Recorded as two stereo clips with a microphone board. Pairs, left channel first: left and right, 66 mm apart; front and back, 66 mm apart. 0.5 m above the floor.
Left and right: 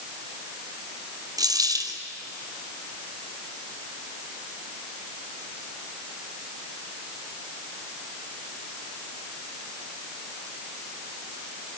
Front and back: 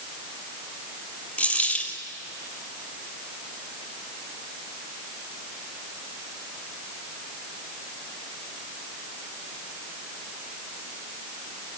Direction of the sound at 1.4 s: 70° right.